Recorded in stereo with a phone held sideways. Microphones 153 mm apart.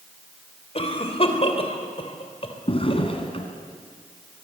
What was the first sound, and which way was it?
A cough, 40° left (ahead or behind).